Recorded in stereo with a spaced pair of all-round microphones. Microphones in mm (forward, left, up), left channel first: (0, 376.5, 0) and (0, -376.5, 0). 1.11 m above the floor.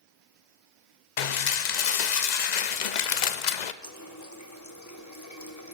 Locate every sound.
1.2 s dishes clattering: 70° left (ahead or behind), 0.7 m
3.8 s a running tap: 25° left (ahead or behind), 1.2 m